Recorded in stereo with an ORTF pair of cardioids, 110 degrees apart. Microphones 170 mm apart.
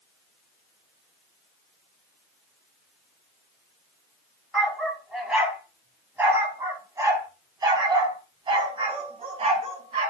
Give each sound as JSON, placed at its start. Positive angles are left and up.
{"t": 4.5, "sound": "a dog barking", "azimuth_deg": 0, "distance_m": 4.0}